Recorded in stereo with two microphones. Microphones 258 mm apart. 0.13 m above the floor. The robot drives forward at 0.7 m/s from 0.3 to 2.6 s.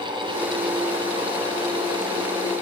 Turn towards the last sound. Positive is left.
No sound to turn to.